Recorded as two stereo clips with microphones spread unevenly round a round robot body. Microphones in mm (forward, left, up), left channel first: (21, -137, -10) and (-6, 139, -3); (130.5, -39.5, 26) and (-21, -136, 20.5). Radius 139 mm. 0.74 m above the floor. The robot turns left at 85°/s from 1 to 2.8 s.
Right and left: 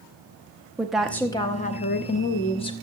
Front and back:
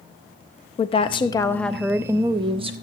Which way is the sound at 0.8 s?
5° left.